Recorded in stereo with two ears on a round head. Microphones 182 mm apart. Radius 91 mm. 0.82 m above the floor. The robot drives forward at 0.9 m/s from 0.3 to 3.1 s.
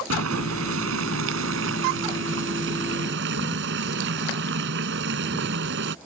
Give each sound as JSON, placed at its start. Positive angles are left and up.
{"t": 0.1, "sound": "boiling", "side_deg": -85}